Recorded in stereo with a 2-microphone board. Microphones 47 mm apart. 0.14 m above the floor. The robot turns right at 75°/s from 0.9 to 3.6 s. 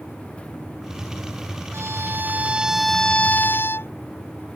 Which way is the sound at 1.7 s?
85° right.